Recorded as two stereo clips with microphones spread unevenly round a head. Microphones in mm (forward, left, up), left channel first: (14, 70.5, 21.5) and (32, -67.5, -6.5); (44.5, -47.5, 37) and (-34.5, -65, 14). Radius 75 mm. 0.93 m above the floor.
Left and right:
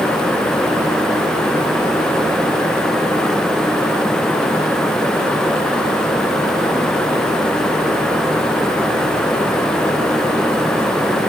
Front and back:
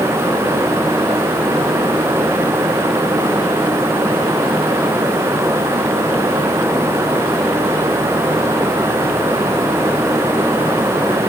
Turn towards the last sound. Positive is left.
No sound to turn to.